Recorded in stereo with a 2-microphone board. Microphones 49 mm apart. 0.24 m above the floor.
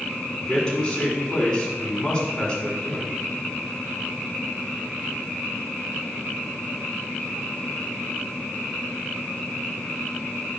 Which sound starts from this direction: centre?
A man speaking, at 0.4 s.